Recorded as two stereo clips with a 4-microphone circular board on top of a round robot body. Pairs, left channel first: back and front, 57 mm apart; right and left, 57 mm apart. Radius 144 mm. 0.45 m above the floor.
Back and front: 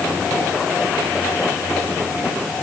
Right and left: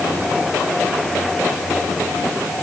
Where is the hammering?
I don't hear hammering.